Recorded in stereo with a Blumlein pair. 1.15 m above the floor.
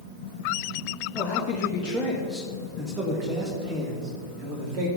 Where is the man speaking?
25° left, 1.7 m; by 4.9 s 35° right, 3 m.